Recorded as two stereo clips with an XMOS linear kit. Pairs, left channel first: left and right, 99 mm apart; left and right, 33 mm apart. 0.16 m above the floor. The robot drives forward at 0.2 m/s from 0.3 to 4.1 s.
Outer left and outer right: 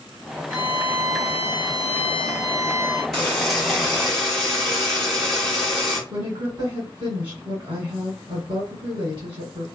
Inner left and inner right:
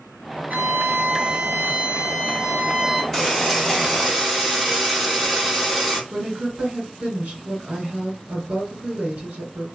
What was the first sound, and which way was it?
A violin, 60° right (ahead or behind).